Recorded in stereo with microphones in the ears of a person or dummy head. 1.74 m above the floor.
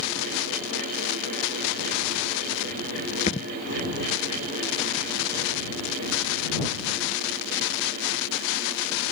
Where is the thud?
35° left (ahead or behind).